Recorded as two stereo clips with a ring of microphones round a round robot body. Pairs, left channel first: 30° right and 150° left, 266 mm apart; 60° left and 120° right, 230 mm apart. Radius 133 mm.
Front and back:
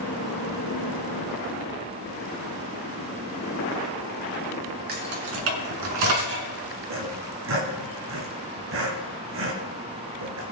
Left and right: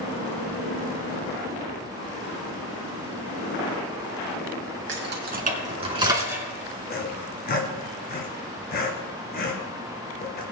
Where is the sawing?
110° left, 2.5 m.